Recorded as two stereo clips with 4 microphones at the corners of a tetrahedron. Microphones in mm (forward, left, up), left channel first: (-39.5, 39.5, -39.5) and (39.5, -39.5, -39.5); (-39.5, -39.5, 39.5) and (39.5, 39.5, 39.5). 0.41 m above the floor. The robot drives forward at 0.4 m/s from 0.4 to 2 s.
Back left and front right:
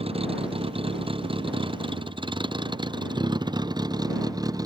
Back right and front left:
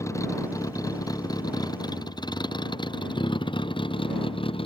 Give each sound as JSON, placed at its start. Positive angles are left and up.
{"t": 0.0, "sound": "a vehicle", "azimuth_deg": -75}